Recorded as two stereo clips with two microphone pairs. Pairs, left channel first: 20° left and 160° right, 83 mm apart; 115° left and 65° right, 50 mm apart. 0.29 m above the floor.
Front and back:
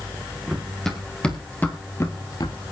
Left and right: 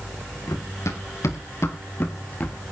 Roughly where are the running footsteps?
Left.